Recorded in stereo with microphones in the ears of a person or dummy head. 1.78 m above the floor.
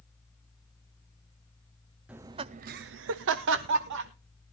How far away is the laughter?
About 0.6 m.